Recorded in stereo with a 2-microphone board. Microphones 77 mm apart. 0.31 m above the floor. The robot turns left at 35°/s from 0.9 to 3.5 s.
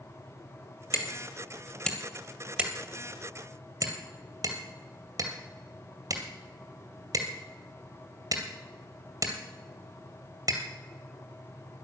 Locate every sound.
0.9 s hammering: 35° left (ahead or behind), 2 m; by 10.6 s 55° right (ahead or behind), 2 m